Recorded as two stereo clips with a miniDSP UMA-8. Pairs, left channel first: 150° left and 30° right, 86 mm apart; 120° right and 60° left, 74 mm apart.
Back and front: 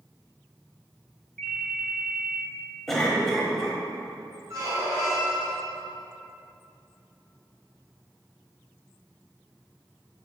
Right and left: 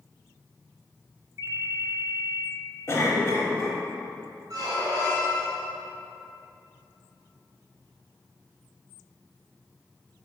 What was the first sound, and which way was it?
A ringtone, 125° right.